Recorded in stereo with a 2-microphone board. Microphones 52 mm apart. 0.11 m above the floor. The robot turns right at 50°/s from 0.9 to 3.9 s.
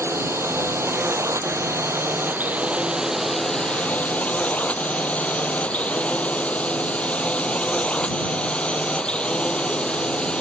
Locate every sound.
0.0 s a drone: 55° right (ahead or behind); by 10.4 s 15° left (ahead or behind)